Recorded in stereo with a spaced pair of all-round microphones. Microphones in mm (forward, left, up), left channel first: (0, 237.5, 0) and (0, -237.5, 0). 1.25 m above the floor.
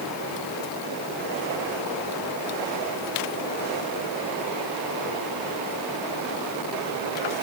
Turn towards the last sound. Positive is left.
No sound to turn to.